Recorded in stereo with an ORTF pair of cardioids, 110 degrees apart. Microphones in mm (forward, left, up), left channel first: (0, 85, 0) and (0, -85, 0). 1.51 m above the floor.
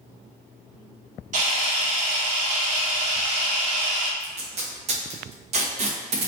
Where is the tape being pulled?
40° right, 0.9 m.